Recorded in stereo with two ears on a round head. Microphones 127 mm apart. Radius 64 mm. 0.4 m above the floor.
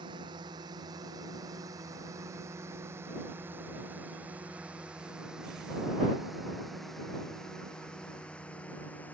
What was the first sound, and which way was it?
A drone, 35° right (ahead or behind).